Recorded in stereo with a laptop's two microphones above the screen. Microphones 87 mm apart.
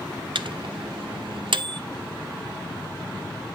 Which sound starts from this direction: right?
A microwave, at 0.3 s.